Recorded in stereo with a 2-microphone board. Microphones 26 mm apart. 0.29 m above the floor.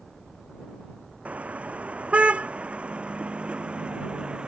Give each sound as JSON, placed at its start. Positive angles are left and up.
{"t": 1.2, "sound": "a car horn", "side_deg": -55}